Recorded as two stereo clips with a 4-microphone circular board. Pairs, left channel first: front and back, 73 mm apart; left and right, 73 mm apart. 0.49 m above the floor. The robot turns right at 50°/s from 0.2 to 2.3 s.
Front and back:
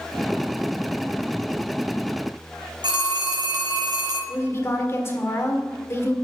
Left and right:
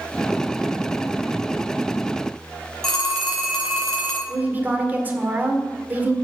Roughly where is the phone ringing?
Behind.